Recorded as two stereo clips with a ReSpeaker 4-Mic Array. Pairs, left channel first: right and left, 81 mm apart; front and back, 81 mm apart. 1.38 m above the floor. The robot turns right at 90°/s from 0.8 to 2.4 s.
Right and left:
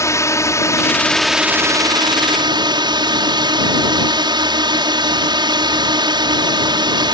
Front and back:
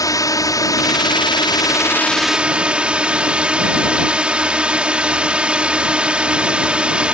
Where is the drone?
40° right; by 7.1 s 105° left.